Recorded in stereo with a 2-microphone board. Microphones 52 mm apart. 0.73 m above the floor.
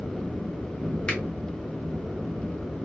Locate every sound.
1.1 s a finger snap: 20° left (ahead or behind), 1.3 m